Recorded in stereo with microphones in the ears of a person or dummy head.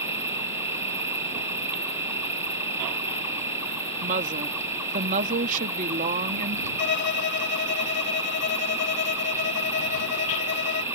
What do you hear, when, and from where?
0.0 s an insect: 15° right (ahead or behind)
4.0 s a woman speaking: 40° right (ahead or behind)
6.8 s a violin: 55° left (ahead or behind)